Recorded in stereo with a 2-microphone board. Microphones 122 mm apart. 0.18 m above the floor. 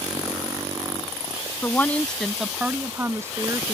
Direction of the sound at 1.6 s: 20° left (ahead or behind).